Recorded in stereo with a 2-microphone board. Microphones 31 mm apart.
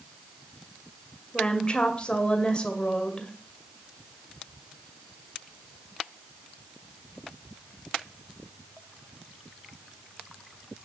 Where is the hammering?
No hammering in this recording.